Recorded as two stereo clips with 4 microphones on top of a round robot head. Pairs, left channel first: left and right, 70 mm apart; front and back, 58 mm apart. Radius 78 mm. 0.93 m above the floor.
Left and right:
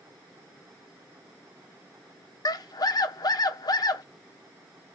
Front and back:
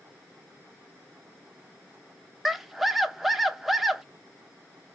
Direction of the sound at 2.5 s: 95° left.